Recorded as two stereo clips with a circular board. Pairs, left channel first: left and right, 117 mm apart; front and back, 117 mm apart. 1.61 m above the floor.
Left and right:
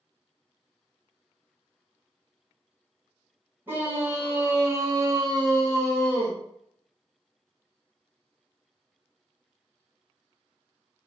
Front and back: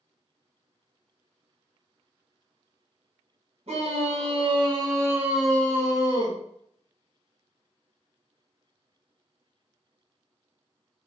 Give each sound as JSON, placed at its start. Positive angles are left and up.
{"t": 3.7, "sound": "a scream", "azimuth_deg": -160, "distance_m": 1.2}